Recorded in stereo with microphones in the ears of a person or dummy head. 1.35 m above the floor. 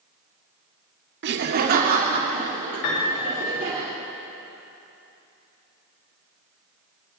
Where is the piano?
70° left (ahead or behind), 4 m.